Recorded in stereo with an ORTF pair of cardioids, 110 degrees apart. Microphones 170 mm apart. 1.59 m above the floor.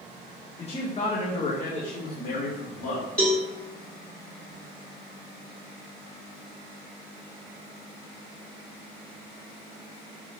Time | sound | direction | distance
0.6 | a man speaking | 30° left | 1.5 m
3.2 | a cowbell | 5° left | 3 m